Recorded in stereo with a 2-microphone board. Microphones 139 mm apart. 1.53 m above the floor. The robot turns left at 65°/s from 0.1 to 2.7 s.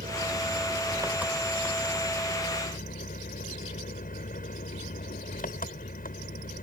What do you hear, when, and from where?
0.0 s an engine running: 95° right; by 6.7 s 95° left